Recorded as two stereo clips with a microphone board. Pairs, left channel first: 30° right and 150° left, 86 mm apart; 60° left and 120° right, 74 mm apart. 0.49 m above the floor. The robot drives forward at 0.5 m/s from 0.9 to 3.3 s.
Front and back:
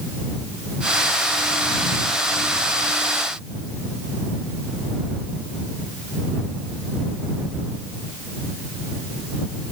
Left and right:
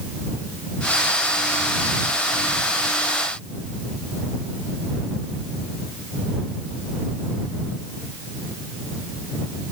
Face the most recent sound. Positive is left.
No sound to turn to.